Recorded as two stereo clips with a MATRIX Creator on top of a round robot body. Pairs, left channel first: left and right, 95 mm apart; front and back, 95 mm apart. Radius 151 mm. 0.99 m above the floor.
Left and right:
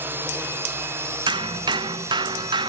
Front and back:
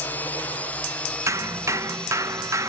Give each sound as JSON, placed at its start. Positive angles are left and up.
{"t": 0.0, "sound": "a drone", "azimuth_deg": -55}
{"t": 1.3, "sound": "hammering", "azimuth_deg": -125}